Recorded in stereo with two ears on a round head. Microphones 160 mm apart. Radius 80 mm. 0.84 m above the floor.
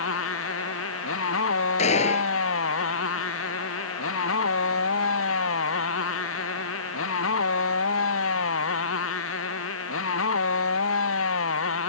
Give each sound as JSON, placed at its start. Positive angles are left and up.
{"t": 0.0, "sound": "a motorcycle", "side_deg": 85}
{"t": 1.8, "sound": "a gunshot", "side_deg": 40}